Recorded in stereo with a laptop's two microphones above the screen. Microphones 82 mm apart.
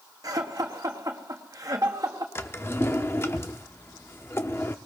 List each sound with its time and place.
0.2 s laughter: 45° right (ahead or behind), 1.3 m
2.4 s a drawer: 30° left (ahead or behind), 0.7 m